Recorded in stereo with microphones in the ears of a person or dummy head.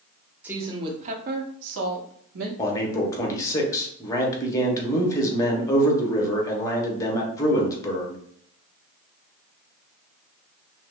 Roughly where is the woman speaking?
Centre.